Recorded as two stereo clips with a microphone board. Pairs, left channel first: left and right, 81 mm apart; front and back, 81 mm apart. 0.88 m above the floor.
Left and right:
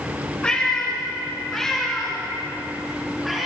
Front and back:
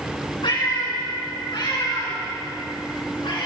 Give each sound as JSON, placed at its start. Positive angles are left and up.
{"t": 0.4, "sound": "a cat meowing", "azimuth_deg": 10, "distance_m": 5.0}